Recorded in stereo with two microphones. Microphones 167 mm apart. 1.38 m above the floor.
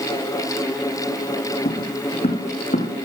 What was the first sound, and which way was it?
Footsteps, 70° left (ahead or behind).